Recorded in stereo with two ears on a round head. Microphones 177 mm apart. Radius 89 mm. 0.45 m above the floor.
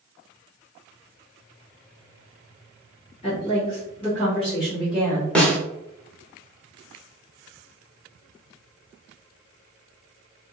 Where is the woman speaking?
30° left (ahead or behind), 1.1 m; by 5.2 s 10° right (ahead or behind), 1.6 m.